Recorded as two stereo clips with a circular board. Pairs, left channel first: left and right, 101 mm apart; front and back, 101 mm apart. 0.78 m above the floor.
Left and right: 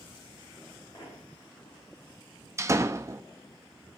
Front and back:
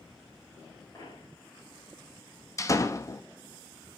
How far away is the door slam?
About 0.7 m.